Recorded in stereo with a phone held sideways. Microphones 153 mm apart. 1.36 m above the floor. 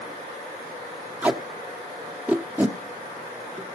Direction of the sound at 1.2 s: 10° right (ahead or behind).